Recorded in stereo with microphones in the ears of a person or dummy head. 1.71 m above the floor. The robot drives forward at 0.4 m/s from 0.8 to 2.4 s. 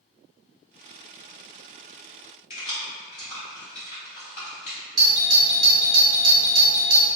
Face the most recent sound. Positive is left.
turn(degrees=-25)  # may be behind; listen again after turning